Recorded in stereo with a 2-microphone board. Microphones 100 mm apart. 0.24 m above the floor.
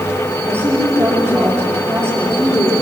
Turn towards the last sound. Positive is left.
turn(degrees=-20)  # may be behind; listen again after turning